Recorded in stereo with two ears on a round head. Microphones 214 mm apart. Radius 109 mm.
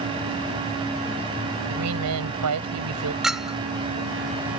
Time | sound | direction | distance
1.7 | a woman speaking | 85° right | ?
3.2 | a clink | centre (ahead or behind) | ?